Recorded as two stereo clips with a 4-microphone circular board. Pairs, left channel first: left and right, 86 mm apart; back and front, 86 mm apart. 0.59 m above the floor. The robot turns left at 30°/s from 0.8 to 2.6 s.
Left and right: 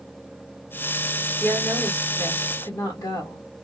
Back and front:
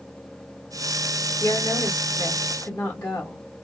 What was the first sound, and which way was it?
A woman speaking, 160° left.